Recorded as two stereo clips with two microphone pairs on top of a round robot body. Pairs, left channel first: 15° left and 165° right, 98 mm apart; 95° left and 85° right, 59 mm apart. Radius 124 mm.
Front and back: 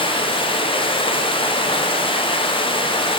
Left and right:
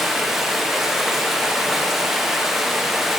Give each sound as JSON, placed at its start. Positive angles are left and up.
{"t": 0.0, "sound": "running water", "azimuth_deg": 0, "distance_m": 1.2}